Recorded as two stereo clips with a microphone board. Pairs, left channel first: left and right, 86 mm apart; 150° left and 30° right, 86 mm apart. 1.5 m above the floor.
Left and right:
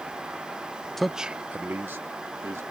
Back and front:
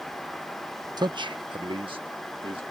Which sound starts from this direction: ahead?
A man speaking, at 1.0 s.